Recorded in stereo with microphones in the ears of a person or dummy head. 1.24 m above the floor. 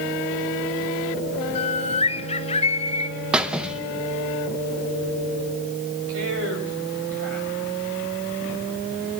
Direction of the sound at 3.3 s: 5° right (ahead or behind).